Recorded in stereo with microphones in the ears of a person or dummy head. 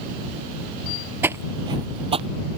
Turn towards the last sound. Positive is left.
turn(degrees=-35)  # may be behind; listen again after turning